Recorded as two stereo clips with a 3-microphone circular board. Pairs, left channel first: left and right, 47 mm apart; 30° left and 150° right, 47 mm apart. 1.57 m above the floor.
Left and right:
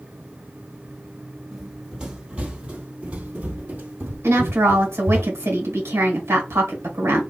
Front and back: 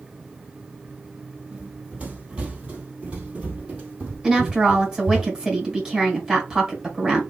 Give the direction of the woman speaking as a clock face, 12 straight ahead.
2 o'clock.